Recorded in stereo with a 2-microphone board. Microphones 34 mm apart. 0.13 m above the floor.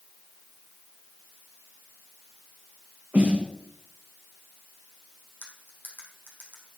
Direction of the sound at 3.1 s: 60° right (ahead or behind).